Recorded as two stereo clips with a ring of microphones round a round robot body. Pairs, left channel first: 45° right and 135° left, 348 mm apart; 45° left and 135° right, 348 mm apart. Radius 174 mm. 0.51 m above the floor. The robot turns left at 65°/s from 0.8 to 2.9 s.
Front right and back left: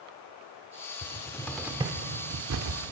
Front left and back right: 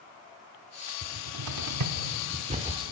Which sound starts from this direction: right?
A cupboard door, at 1.0 s.